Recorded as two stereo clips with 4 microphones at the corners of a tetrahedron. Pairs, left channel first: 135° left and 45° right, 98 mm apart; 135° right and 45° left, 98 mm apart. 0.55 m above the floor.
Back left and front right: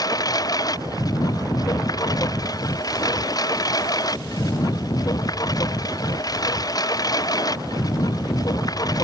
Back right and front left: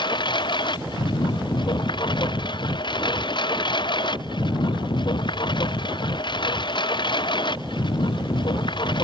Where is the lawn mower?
175° right.